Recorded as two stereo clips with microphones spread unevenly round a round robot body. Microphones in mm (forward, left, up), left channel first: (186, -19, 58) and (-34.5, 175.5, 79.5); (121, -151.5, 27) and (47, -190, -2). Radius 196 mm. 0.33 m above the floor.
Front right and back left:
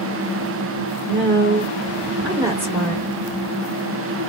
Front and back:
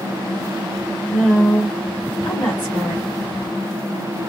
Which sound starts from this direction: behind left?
A woman speaking, at 1.1 s.